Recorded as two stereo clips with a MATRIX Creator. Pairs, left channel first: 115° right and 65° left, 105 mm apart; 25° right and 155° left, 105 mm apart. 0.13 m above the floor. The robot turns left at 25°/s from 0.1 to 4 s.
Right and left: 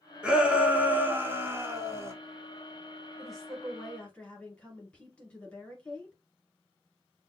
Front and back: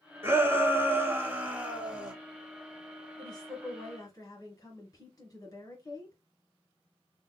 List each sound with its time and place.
0.2 s a shout: 135° left, 1.1 m; by 2.1 s 90° left, 1.1 m
3.2 s a woman speaking: 20° right, 1.9 m; by 6.2 s 40° right, 1.9 m